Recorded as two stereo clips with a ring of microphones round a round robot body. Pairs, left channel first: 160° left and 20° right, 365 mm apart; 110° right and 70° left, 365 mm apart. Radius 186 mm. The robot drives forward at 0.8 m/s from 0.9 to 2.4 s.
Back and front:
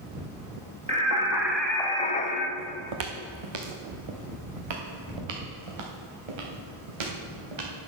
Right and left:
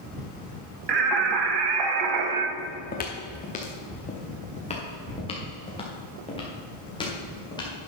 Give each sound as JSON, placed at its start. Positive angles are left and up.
{"t": 0.9, "sound": "singing", "azimuth_deg": 50, "distance_m": 1.8}
{"t": 2.6, "sound": "footsteps", "azimuth_deg": -45, "distance_m": 1.5}